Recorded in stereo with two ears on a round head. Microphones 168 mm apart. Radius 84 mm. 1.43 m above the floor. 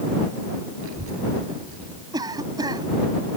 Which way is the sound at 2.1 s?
20° right (ahead or behind).